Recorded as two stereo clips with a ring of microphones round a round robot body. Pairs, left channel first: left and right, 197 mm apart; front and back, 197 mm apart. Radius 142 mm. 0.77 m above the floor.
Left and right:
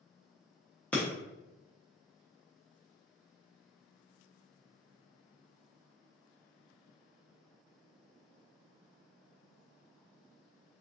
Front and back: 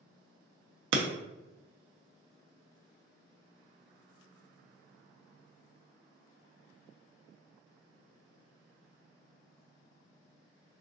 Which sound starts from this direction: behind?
Breaking glass, at 0.9 s.